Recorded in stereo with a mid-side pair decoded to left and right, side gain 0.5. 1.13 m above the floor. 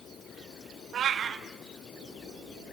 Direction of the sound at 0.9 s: 50° right.